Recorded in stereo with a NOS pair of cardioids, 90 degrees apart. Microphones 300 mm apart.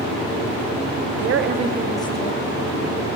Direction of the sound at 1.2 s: 60° right.